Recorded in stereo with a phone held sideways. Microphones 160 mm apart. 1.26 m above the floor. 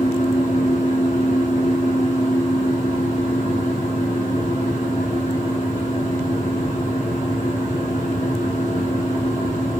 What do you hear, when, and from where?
0.0 s a fan: 45° left (ahead or behind), 1.1 m